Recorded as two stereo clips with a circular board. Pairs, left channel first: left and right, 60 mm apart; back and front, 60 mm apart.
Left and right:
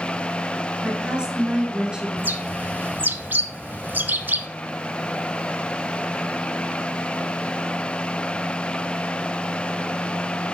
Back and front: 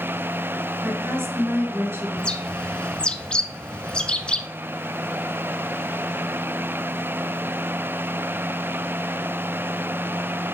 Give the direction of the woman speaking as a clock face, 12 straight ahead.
1 o'clock.